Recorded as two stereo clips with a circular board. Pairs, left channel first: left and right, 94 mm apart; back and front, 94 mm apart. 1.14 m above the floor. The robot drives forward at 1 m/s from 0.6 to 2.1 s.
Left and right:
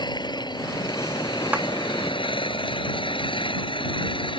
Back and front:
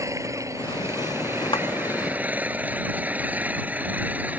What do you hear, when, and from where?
0.0 s an engine running: 55° left; by 4.4 s 70° left
1.5 s a clap: 160° right